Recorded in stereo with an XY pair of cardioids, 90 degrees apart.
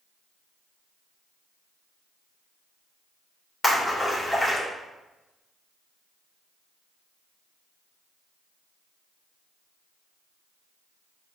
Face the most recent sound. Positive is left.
turn(degrees=30)